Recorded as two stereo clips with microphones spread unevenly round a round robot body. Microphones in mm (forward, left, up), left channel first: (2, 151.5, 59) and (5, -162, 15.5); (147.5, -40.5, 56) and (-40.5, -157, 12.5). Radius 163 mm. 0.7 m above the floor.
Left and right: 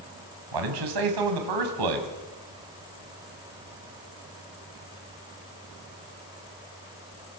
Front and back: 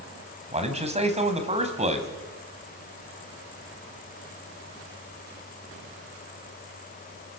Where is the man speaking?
90° right, 4.5 m.